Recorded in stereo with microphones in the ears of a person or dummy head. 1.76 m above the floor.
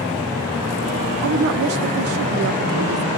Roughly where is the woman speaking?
Right.